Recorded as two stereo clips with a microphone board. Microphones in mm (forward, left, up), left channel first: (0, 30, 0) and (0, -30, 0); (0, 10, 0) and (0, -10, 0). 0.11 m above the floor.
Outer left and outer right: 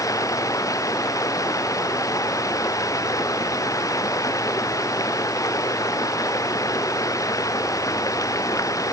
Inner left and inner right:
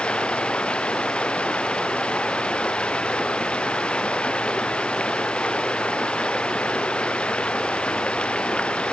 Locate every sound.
0.0 s running water: 65° left (ahead or behind)